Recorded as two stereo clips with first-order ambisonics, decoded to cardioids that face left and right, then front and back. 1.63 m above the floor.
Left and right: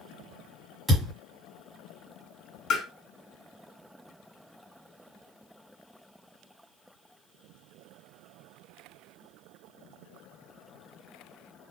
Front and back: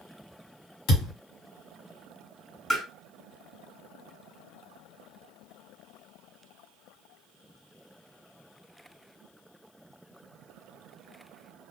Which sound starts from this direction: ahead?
A thud, at 0.9 s.